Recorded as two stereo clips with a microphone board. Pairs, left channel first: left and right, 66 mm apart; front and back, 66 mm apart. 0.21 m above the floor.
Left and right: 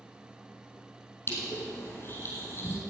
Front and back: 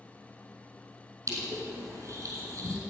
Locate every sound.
1.3 s crushing: 140° left, 4.5 m